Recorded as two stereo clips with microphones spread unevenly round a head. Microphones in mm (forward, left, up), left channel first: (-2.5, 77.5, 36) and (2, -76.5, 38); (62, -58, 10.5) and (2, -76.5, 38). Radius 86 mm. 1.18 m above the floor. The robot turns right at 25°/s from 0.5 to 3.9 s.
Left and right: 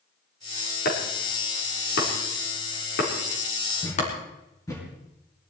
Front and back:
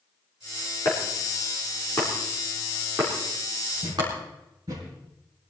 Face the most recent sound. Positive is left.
turn(degrees=165)